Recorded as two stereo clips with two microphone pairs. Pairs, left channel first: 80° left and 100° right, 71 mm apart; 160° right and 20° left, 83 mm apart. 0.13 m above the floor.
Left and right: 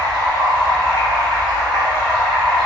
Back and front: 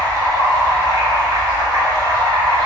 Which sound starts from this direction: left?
Running water, at 0.0 s.